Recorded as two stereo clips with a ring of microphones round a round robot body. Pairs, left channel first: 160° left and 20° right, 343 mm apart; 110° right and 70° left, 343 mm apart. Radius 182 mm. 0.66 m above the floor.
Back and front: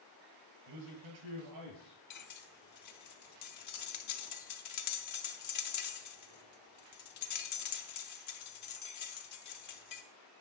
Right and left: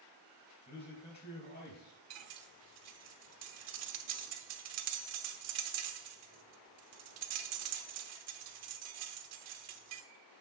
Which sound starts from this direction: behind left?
Cutlery clinking, at 2.1 s.